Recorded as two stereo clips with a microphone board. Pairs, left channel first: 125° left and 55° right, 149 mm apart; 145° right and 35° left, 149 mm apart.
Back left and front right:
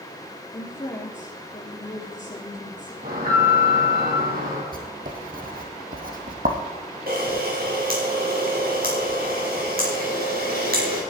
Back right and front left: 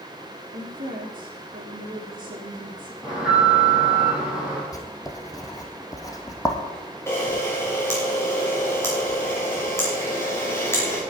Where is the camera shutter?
70° right, 4 m.